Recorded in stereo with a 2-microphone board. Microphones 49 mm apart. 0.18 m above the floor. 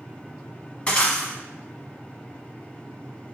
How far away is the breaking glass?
About 0.9 m.